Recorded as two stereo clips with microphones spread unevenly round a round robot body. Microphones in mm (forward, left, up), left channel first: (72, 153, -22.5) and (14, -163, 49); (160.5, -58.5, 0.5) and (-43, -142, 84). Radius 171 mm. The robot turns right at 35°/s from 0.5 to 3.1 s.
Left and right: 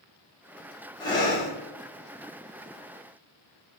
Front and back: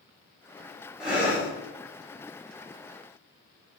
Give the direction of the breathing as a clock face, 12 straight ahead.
10 o'clock.